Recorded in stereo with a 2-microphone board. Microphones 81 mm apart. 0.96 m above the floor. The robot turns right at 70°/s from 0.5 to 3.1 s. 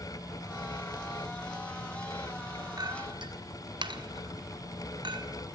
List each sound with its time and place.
2.8 s a clink: 50° right (ahead or behind), 1.1 m; by 5.3 s 70° right (ahead or behind), 1.1 m